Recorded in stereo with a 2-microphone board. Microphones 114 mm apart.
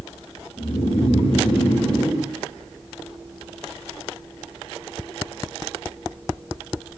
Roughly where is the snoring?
Left.